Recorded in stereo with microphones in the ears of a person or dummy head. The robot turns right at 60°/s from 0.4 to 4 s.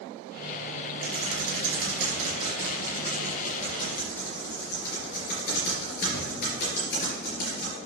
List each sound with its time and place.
1.0 s typing on a keyboard: 65° right (ahead or behind), 4 m; by 7.8 s 65° left (ahead or behind), 4 m